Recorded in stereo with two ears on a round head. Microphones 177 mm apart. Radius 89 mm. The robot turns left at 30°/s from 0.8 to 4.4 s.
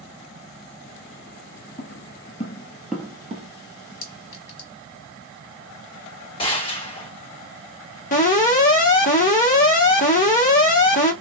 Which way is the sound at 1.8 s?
50° left (ahead or behind).